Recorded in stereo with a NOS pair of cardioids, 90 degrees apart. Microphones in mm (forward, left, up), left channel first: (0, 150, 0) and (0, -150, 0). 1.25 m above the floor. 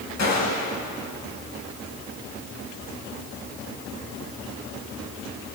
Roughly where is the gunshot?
Ahead left.